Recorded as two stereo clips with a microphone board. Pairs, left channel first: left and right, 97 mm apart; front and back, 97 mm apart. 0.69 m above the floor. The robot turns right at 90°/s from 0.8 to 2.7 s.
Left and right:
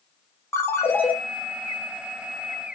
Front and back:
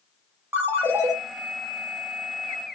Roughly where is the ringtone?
Behind left.